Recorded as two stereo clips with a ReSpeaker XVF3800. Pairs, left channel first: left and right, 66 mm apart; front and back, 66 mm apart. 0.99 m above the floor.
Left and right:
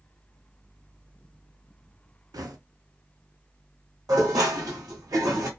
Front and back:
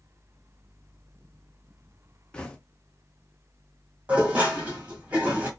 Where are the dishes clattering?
110° right, 1.3 m.